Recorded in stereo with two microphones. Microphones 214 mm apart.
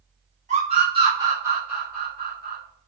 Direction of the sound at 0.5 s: 35° right (ahead or behind).